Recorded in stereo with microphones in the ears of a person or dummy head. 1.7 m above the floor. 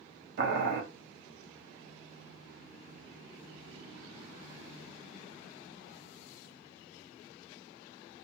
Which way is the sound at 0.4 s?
60° right (ahead or behind).